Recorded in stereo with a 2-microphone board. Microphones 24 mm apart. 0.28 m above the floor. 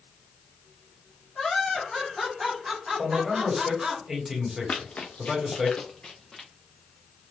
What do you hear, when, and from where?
1.4 s laughter: 25° left (ahead or behind), 1.9 m; by 4.0 s 40° right (ahead or behind), 2.5 m
3.0 s a man speaking: 15° right (ahead or behind), 1.5 m
4.7 s running footsteps: 60° left (ahead or behind), 1.2 m; by 6.5 s 15° left (ahead or behind), 2.0 m